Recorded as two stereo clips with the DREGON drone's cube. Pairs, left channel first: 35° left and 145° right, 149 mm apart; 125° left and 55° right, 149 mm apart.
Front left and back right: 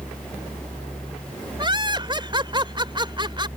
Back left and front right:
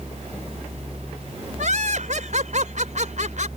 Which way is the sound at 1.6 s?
90° right.